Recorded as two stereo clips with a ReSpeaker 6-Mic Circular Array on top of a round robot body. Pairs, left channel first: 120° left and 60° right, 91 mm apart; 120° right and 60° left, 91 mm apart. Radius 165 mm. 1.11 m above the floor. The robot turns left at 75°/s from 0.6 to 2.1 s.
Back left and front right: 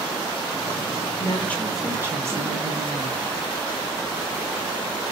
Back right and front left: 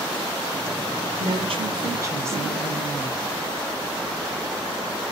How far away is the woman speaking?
About 1.5 m.